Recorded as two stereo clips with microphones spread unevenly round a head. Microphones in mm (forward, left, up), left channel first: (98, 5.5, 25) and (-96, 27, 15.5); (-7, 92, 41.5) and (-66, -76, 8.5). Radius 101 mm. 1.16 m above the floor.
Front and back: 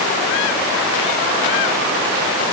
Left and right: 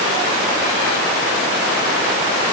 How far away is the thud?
I don't hear a thud.